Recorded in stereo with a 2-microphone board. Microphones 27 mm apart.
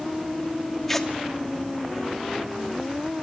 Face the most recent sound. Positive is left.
turn(degrees=10)  # may be behind; listen again after turning